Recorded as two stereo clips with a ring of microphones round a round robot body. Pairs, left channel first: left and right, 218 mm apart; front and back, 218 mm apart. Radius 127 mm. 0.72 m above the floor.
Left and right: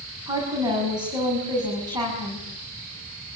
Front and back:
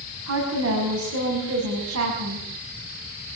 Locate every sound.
0.3 s a woman speaking: 160° right, 5.5 m